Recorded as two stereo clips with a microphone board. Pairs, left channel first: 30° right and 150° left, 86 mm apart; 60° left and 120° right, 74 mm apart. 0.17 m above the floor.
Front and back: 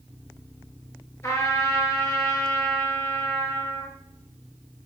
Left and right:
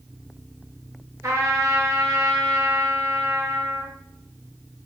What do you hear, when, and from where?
1.2 s a trumpet: 80° right, 0.6 m